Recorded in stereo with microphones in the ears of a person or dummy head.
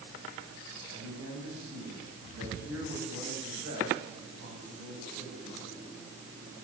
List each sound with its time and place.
0.9 s a man speaking: 75° right (ahead or behind), 9 m